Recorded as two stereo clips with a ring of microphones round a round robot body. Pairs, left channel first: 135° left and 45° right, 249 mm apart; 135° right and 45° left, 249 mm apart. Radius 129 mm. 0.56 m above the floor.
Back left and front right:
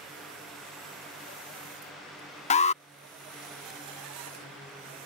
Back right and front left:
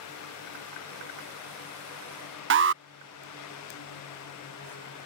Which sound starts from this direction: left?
An alarm, at 2.5 s.